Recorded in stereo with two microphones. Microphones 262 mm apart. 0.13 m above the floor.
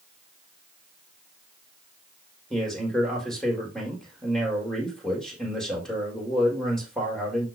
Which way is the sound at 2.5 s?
Centre (ahead or behind).